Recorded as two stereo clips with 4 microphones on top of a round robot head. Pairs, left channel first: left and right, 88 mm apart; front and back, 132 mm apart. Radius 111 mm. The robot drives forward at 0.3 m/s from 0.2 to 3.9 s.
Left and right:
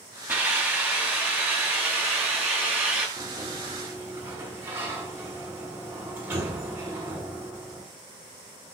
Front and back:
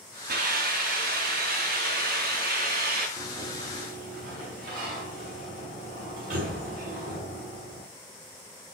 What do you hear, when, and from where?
0.3 s a hiss: 160° right, 3 m; by 3.1 s 165° right, 4 m
3.2 s a sliding door: 155° right, 5.5 m